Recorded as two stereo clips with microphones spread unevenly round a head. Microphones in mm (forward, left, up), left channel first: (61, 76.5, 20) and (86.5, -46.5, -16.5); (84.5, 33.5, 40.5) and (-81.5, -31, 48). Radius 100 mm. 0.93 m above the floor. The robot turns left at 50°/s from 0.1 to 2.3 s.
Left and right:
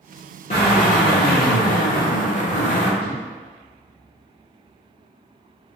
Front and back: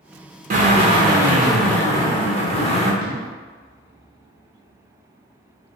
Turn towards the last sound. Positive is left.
turn(degrees=-145)